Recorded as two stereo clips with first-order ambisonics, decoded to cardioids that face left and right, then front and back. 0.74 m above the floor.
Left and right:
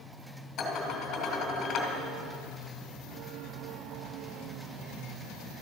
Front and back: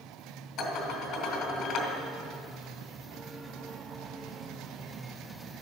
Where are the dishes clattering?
40° left, 3 m.